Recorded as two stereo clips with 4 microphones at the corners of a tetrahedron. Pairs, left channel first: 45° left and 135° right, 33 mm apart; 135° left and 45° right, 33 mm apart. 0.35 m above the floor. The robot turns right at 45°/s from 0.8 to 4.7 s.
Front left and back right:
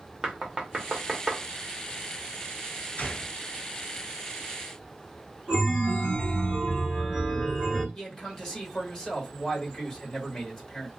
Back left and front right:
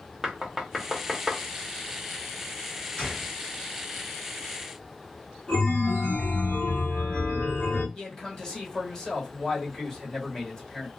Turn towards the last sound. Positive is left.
turn(degrees=90)